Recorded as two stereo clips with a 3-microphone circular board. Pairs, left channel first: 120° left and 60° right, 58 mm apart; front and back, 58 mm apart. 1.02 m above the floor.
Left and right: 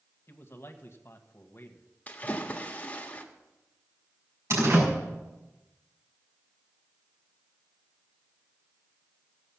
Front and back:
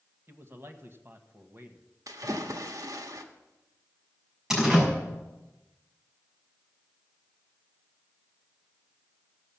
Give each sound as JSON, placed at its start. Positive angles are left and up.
{"t": 0.3, "sound": "a man speaking", "azimuth_deg": 145, "distance_m": 1.3}
{"t": 2.1, "sound": "a splash", "azimuth_deg": -175, "distance_m": 1.3}
{"t": 4.5, "sound": "a door slam", "azimuth_deg": -100, "distance_m": 5.5}